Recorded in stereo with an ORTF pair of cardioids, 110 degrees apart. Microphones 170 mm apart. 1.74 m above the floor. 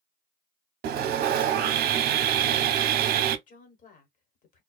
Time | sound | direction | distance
0.8 | sawing | 65° right | 0.6 m
3.5 | a woman speaking | 50° left | 1.3 m